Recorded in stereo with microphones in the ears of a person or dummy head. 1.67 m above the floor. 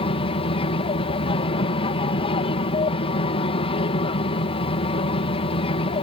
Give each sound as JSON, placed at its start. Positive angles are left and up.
{"t": 0.0, "sound": "an aircraft", "side_deg": 25}